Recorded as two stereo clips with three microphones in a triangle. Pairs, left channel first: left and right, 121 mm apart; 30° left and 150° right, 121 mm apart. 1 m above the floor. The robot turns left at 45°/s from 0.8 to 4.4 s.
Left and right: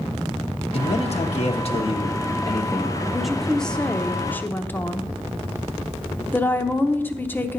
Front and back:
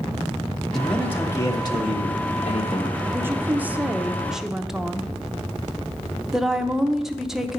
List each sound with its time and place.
0.7 s a man speaking: 115° left, 1.1 m; by 3.0 s 15° left, 1.1 m
3.1 s a woman speaking: 170° right, 0.6 m; by 7.6 s 130° left, 0.6 m